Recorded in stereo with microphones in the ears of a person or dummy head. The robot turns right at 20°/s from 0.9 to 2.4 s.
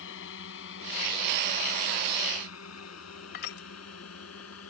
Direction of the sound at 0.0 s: 75° left (ahead or behind).